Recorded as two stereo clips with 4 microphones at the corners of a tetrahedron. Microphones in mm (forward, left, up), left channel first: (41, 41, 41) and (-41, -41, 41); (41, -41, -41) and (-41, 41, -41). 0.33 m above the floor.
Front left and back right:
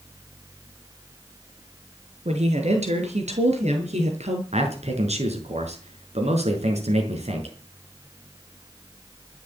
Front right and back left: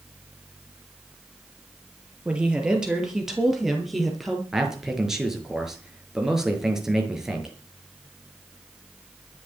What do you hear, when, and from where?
2.2 s a woman speaking: 145° right, 6 m; by 4.4 s 135° right, 6.5 m
4.5 s a man speaking: 140° right, 5.5 m